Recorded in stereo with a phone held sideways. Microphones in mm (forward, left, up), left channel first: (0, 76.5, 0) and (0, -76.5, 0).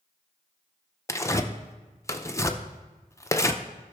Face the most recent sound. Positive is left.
turn(degrees=20)  # may be behind; listen again after turning